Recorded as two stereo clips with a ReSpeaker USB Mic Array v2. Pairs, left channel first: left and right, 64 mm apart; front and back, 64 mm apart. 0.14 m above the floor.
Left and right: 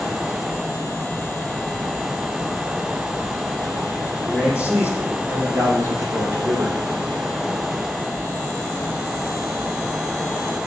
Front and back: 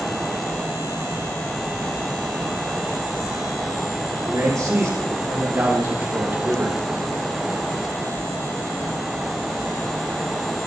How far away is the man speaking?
About 4.5 m.